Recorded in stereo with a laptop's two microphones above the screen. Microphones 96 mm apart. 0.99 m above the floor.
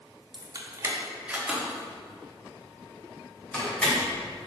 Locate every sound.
0.3 s keys jangling: 50° right (ahead or behind), 1.0 m; by 4.0 s 15° left (ahead or behind), 3.5 m